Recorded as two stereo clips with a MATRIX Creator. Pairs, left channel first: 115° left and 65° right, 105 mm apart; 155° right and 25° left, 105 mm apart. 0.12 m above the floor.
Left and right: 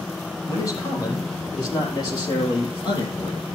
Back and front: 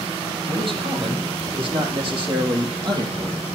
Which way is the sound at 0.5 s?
55° left.